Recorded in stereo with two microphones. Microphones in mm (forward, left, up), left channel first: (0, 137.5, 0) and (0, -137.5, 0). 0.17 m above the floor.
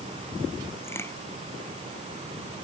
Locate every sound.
0.8 s a crack: 10° left (ahead or behind)